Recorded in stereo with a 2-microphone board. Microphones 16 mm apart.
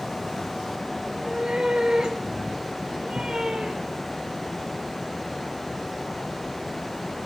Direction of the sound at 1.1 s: 50° right (ahead or behind).